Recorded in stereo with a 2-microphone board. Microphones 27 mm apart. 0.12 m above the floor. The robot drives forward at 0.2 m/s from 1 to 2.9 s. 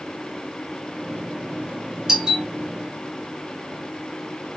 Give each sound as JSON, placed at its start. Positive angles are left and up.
{"t": 2.1, "sound": "a doorbell", "side_deg": -25, "distance_m": 2.5}